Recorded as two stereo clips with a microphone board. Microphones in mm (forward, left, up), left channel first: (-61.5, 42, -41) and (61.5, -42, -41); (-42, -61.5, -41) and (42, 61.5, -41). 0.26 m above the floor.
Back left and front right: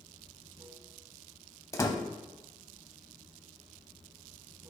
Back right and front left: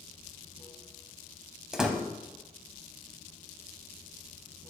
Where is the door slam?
135° left, 0.7 m.